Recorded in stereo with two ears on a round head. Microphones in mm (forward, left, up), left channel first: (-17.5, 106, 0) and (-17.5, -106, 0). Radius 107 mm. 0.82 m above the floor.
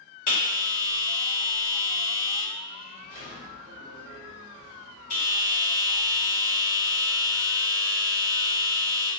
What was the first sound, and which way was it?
A bell, 65° left (ahead or behind).